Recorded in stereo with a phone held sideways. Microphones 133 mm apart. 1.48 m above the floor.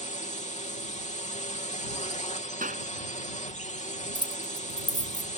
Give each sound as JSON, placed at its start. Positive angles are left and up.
{"t": 0.0, "sound": "a drone", "side_deg": 60}
{"t": 2.6, "sound": "a clap", "side_deg": -85}
{"t": 4.2, "sound": "keys jangling", "side_deg": 35}